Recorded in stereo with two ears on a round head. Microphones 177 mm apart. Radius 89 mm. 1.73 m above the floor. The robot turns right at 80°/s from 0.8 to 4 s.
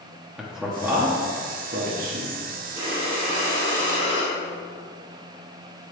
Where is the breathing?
155° right, 2 m; by 4.3 s 55° right, 2 m.